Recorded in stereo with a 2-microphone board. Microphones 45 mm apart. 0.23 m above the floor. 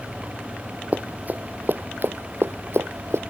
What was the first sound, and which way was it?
Running footsteps, 35° right (ahead or behind).